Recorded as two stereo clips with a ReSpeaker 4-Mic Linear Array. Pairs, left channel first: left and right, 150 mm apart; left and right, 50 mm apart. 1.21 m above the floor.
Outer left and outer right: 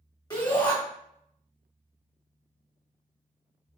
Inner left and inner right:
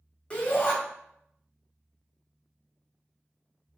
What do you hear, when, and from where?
0.3 s a shout: 30° left (ahead or behind), 1.8 m